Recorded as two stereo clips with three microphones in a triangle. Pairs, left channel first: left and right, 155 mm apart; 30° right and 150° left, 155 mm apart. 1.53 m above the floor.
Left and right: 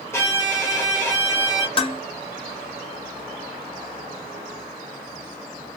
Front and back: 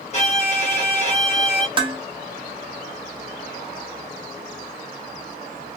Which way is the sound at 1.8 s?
120° left.